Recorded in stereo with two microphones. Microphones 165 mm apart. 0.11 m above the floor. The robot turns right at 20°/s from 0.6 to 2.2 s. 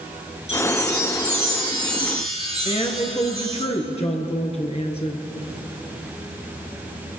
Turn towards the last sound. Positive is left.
turn(degrees=40)  # may be behind; listen again after turning